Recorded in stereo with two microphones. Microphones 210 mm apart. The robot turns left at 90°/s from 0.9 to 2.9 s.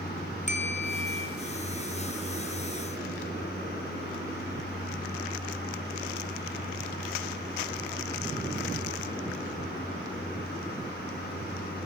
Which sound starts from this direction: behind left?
A bell, at 0.5 s.